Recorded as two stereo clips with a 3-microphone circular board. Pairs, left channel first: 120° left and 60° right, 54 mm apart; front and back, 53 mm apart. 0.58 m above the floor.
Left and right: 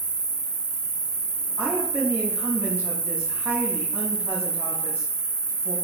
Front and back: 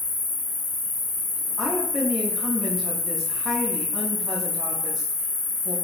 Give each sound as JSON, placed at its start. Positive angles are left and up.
{"t": 0.0, "sound": "an insect", "azimuth_deg": -45, "distance_m": 0.8}
{"t": 1.6, "sound": "a woman speaking", "azimuth_deg": -90, "distance_m": 0.7}